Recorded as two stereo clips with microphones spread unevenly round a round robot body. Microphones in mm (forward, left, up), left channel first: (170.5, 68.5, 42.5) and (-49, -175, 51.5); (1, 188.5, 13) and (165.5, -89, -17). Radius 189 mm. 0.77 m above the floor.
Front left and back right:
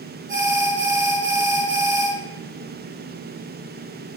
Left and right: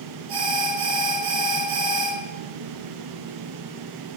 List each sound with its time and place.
0.3 s an alarm: 65° right, 4.5 m